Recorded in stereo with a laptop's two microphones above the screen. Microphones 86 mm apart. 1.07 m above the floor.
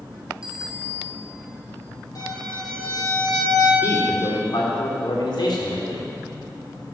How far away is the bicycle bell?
About 2 m.